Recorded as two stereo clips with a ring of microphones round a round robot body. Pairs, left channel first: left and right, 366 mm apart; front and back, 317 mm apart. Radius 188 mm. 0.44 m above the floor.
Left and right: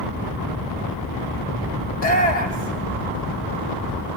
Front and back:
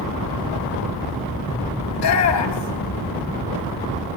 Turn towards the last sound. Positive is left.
turn(degrees=25)